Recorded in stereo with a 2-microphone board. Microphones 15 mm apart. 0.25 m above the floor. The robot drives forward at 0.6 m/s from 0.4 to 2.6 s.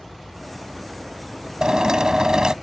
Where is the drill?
50° right (ahead or behind); by 2.5 s 45° right (ahead or behind).